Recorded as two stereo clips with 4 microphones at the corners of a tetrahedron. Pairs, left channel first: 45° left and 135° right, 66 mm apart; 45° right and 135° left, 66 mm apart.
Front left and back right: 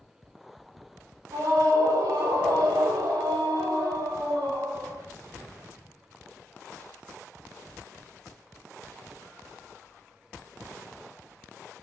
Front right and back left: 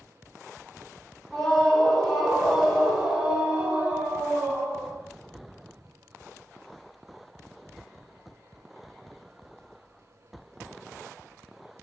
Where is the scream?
125° right, 6 m; by 5.0 s 165° right, 6 m.